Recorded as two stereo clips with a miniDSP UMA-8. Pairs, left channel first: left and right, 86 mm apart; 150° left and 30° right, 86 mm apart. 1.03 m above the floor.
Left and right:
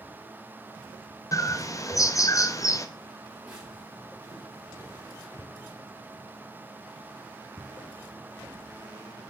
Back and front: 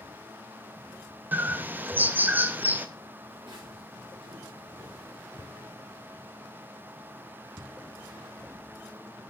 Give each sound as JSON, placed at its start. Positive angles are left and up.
{"t": 1.3, "sound": "a bird", "azimuth_deg": 40, "distance_m": 0.6}
{"t": 3.3, "sound": "footsteps", "azimuth_deg": -20, "distance_m": 4.5}
{"t": 5.4, "sound": "a thud", "azimuth_deg": 30, "distance_m": 0.8}